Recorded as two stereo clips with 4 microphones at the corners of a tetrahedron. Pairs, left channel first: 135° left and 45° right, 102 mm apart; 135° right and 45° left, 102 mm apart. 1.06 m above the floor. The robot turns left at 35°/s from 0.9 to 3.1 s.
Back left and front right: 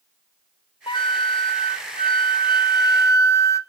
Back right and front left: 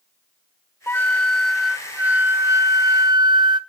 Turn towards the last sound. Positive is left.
turn(degrees=80)